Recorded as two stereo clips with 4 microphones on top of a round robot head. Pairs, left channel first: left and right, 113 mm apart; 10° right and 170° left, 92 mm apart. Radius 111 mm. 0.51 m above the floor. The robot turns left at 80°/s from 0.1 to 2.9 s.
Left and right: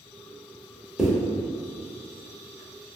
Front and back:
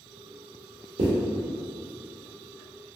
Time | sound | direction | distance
1.0 | a zipper | 175° right | 0.8 m